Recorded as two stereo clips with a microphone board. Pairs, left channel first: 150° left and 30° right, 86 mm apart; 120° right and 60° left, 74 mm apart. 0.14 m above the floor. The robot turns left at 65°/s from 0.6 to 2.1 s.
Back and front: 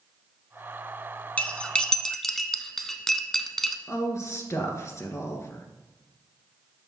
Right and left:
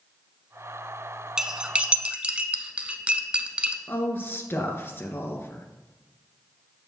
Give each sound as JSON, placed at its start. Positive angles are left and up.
{"t": 1.4, "sound": "cutlery clinking", "azimuth_deg": 120, "distance_m": 0.7}
{"t": 3.9, "sound": "a woman speaking", "azimuth_deg": -170, "distance_m": 1.8}